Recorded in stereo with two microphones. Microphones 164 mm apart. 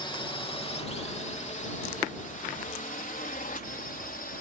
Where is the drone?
30° left (ahead or behind); by 4.4 s 65° left (ahead or behind).